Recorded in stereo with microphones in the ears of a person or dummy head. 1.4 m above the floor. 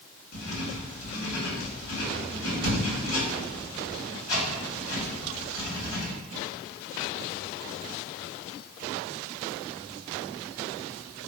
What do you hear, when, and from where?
0.3 s writing: 75° left (ahead or behind), 1.7 m